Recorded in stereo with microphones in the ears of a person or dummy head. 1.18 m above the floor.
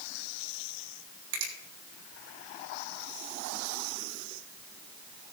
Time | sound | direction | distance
1.3 | a finger snap | 80° right | 3.5 m